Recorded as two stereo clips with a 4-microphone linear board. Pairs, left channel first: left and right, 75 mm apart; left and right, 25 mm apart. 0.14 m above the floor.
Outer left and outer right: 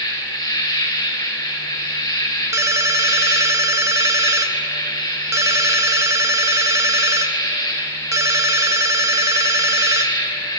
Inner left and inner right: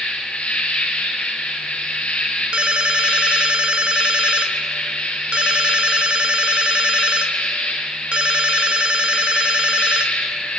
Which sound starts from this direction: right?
A ringtone, at 2.5 s.